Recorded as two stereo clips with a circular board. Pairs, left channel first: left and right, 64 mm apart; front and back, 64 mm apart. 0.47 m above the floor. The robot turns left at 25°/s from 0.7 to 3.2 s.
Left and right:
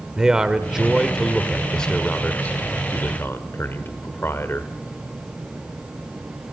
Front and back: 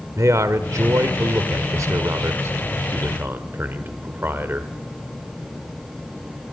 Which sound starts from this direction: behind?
A man speaking, at 0.2 s.